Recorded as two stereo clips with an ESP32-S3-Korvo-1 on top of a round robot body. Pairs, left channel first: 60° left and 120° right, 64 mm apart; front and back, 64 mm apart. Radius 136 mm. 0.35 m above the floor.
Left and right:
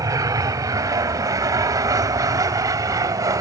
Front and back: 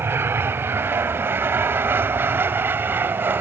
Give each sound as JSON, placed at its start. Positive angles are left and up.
{"t": 0.0, "sound": "an aircraft", "azimuth_deg": -130}